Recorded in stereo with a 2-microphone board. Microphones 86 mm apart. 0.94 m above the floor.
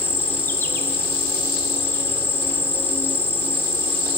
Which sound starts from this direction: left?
An insect, at 0.0 s.